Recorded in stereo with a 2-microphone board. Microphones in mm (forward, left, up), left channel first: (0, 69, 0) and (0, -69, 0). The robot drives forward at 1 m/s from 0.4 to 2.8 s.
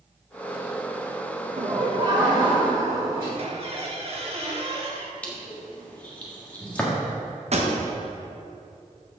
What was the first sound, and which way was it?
Laughter, 40° right (ahead or behind).